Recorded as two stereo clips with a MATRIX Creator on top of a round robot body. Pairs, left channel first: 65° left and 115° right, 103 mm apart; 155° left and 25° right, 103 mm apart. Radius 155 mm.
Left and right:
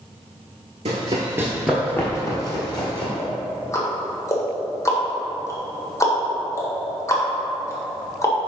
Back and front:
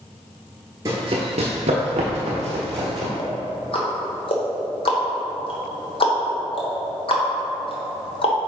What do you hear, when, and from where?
0.8 s running footsteps: 85° right, 0.7 m; by 3.1 s 20° left, 1.3 m
3.2 s ticking: 130° left, 1.4 m